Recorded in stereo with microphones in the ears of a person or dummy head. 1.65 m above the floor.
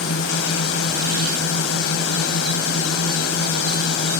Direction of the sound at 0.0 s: 70° left (ahead or behind).